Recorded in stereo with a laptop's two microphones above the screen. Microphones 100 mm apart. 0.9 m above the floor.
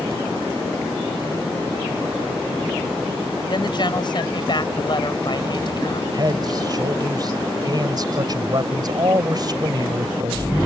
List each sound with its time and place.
3.5 s a woman speaking: 50° left (ahead or behind)
6.1 s a man speaking: 45° right (ahead or behind)